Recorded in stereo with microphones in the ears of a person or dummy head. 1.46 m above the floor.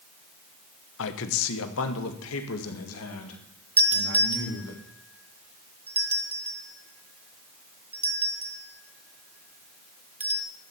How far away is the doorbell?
About 1.7 m.